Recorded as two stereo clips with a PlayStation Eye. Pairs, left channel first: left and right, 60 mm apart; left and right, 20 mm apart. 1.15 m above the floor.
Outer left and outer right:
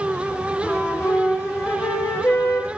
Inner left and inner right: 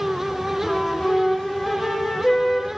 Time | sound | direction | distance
0.6 | a flute | 45° left (ahead or behind) | 1.4 m